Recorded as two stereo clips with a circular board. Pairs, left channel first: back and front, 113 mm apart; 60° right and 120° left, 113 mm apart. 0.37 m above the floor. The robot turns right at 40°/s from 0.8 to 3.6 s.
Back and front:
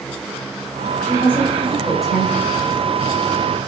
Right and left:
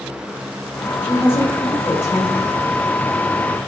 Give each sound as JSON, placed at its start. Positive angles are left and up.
{"t": 1.0, "sound": "a woman speaking", "azimuth_deg": -130, "distance_m": 1.2}